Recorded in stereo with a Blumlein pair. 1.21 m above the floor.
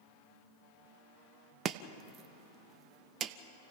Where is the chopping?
25° right, 0.8 m.